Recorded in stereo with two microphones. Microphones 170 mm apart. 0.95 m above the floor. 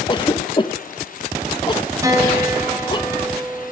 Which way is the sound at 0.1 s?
30° left (ahead or behind).